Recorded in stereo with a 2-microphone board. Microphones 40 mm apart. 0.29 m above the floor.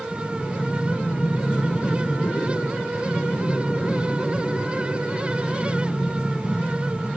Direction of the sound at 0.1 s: 80° left.